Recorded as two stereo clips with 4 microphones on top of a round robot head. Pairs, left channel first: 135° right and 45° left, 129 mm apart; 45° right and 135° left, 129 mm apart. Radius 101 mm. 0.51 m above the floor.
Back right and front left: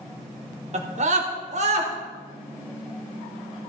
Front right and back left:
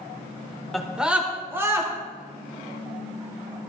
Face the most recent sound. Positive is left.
turn(degrees=70)